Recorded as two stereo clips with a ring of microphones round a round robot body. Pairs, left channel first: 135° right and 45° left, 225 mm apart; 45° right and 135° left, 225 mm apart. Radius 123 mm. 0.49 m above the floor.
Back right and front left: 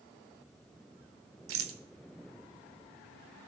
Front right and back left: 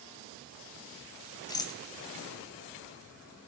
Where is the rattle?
30° left, 1.1 m.